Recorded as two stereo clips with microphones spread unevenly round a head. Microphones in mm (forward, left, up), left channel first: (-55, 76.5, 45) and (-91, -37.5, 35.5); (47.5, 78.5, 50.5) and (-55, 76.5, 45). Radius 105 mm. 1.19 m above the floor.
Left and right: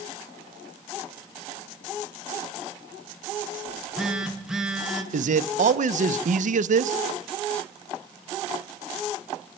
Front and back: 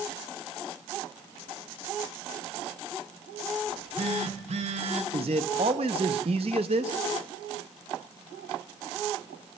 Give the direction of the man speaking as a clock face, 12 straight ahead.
4 o'clock.